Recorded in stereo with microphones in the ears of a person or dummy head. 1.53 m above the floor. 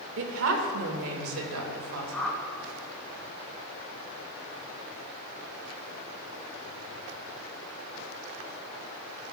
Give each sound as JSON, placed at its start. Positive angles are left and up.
{"t": 0.2, "sound": "a woman speaking", "side_deg": -70, "distance_m": 1.4}
{"t": 2.1, "sound": "a whoosh", "side_deg": 5, "distance_m": 1.1}